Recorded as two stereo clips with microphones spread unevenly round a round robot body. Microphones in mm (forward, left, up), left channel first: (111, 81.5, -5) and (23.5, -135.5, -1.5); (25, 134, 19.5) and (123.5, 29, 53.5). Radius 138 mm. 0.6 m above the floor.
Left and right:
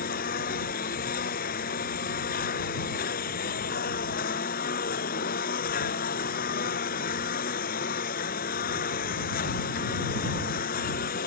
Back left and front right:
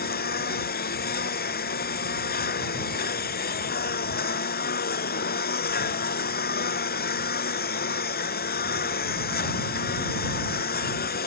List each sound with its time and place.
0.0 s a lawn mower: 130° left